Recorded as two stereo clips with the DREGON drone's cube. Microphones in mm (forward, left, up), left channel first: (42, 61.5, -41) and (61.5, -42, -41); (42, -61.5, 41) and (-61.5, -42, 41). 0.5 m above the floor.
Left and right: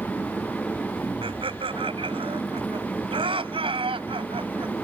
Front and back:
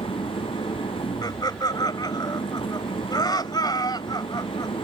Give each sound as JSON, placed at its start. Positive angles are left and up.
{"t": 0.0, "sound": "an engine running", "azimuth_deg": 25}
{"t": 1.2, "sound": "laughter", "azimuth_deg": -55}